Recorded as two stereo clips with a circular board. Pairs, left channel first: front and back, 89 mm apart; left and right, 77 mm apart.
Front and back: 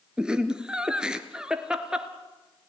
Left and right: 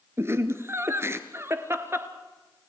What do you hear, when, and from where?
0.2 s laughter: 105° right, 1.4 m